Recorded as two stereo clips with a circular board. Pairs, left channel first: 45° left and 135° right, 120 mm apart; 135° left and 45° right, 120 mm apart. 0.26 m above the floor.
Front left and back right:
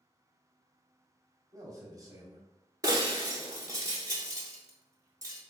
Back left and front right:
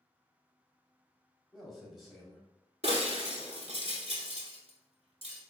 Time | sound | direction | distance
1.5 | a man speaking | 135° right | 1.2 m
2.8 | breaking glass | 75° right | 1.0 m